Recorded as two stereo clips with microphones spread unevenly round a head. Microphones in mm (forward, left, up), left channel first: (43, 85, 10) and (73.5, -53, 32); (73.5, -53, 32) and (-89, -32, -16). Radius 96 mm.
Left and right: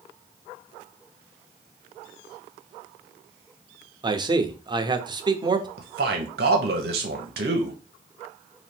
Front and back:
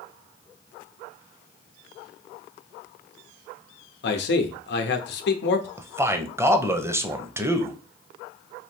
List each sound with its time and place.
4.0 s a man speaking: 20° right, 0.8 m
5.8 s a man speaking: 110° right, 0.8 m